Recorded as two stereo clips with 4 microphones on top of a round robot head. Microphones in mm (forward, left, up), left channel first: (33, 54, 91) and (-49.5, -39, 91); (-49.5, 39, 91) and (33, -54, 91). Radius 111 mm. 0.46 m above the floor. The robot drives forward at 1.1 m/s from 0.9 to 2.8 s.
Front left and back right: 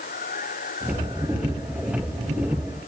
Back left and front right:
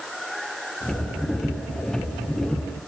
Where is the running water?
40° left; by 2.9 s 45° left.